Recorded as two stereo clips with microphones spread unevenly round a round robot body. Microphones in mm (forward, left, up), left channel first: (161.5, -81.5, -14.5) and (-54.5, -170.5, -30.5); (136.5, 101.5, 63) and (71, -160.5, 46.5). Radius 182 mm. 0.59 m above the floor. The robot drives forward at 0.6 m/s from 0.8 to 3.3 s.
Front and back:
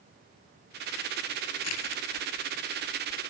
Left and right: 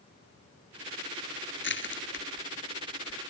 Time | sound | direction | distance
1.6 | crushing | 30° left | ?